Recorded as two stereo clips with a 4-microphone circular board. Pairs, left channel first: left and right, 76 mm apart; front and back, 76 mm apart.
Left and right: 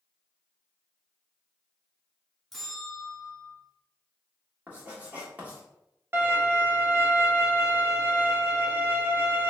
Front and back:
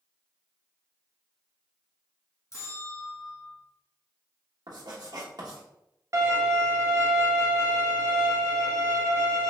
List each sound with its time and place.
2.5 s a bell: 5° left, 1.0 m
4.7 s writing: 160° right, 1.3 m
6.1 s a violin: 145° right, 0.9 m